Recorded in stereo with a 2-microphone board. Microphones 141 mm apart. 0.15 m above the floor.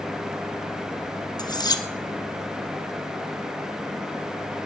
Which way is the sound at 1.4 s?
30° left (ahead or behind).